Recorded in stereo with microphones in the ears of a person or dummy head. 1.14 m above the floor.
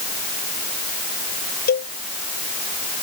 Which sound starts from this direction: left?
A cowbell, at 1.7 s.